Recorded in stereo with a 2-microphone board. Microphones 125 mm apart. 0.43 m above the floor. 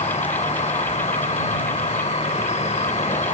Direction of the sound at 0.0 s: 60° left (ahead or behind).